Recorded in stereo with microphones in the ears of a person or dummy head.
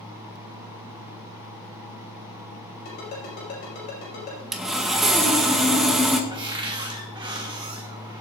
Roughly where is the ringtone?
Left.